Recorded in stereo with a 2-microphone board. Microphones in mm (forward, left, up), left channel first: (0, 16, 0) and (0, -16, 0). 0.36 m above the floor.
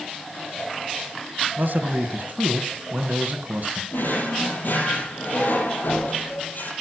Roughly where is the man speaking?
Right.